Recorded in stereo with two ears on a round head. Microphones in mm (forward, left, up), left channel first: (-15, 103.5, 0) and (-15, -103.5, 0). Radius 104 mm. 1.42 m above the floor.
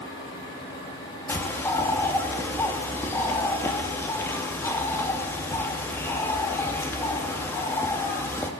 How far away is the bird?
About 2.5 m.